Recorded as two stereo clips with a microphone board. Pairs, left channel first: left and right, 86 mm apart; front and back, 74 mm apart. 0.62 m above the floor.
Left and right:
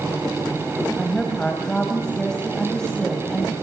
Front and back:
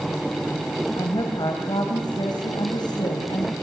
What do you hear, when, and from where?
1.0 s a woman speaking: 5° left, 4 m